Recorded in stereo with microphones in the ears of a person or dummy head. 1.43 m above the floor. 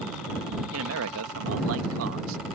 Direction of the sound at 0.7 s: 75° right (ahead or behind).